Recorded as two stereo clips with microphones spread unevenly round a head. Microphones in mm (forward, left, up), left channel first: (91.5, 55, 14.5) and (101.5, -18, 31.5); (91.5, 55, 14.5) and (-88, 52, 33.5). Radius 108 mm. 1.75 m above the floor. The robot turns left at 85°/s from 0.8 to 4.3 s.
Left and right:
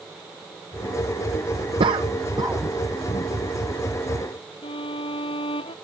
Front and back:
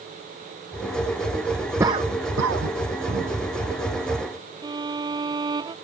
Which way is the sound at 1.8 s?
100° right.